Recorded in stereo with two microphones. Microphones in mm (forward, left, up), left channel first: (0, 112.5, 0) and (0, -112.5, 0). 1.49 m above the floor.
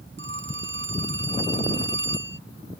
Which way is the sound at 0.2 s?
55° right (ahead or behind).